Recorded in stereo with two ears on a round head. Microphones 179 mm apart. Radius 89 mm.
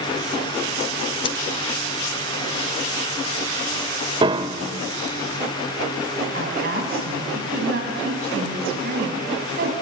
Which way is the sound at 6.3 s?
50° right (ahead or behind).